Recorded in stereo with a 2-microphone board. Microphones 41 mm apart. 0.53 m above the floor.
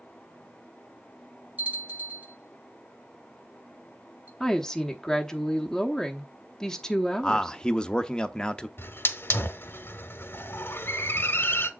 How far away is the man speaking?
About 0.6 m.